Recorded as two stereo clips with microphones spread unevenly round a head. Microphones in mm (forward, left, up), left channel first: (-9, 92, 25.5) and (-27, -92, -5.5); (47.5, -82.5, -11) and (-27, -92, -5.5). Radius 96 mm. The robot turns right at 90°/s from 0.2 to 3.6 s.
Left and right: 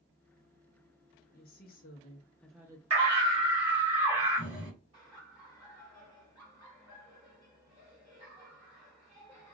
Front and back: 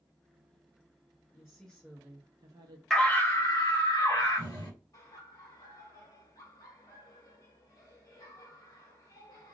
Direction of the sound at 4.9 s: 25° right.